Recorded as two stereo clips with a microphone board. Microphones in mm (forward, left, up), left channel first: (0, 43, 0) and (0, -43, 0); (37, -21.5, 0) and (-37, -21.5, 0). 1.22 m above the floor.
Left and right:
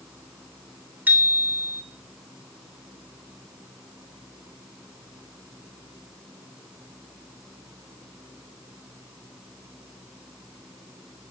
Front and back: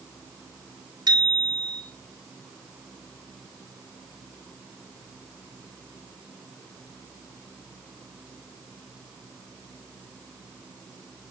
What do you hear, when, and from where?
1.1 s a bicycle bell: 160° right, 3 m